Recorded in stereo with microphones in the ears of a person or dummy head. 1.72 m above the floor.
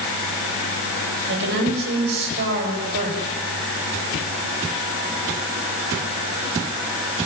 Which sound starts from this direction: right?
A woman speaking, at 1.3 s.